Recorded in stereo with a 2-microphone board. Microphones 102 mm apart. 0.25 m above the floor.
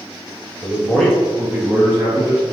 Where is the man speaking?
15° left (ahead or behind), 0.9 m; by 2.4 s 30° right (ahead or behind), 1.3 m.